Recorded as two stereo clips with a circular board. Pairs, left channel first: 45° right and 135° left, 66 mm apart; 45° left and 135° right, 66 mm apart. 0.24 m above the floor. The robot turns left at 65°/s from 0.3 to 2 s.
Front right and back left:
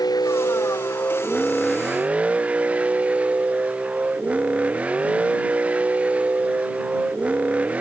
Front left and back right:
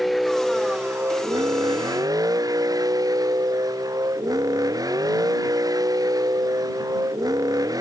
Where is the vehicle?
45° right; by 7.8 s 155° right.